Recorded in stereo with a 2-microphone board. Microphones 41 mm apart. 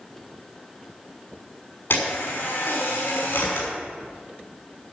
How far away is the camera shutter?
About 6 m.